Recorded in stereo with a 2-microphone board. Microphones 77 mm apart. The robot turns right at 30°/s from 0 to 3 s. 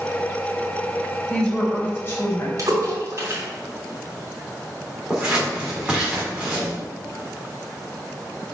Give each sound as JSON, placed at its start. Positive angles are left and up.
{"t": 1.3, "sound": "a woman speaking", "azimuth_deg": 5, "distance_m": 3.0}
{"t": 2.6, "sound": "a splash", "side_deg": -50, "distance_m": 3.5}
{"t": 5.1, "sound": "scissors", "side_deg": -15, "distance_m": 3.0}